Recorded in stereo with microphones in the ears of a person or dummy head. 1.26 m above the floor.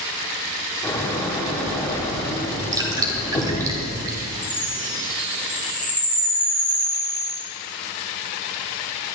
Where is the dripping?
20° right (ahead or behind), 2 m.